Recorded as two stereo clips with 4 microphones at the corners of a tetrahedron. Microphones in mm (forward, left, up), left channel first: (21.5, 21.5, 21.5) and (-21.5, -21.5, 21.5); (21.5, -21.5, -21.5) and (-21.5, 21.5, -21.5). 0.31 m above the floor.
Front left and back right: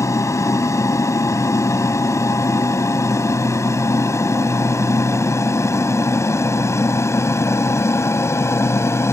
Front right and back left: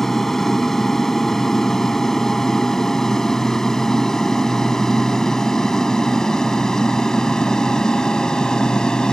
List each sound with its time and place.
0.0 s an aircraft: 40° left; by 9.1 s 30° left